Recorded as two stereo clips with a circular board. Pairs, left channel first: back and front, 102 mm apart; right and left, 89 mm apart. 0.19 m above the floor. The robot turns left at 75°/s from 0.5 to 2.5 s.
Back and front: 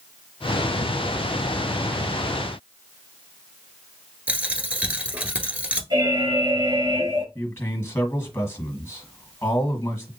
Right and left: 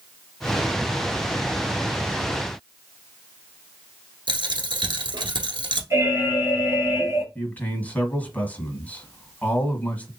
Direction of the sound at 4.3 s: 75° left.